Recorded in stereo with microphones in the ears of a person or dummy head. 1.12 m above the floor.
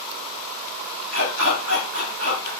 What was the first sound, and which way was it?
A dog barking, 75° right (ahead or behind).